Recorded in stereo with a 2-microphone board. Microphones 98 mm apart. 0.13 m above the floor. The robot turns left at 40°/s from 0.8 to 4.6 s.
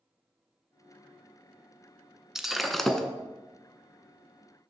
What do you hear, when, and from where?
2.4 s breaking glass: 5° right (ahead or behind), 0.6 m; by 3.1 s 5° left (ahead or behind), 0.6 m